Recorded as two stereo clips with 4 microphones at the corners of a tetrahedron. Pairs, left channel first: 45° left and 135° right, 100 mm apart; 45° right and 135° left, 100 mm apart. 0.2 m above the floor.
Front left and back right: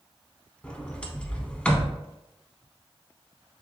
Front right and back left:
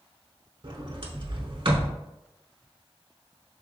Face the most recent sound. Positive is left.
turn(degrees=125)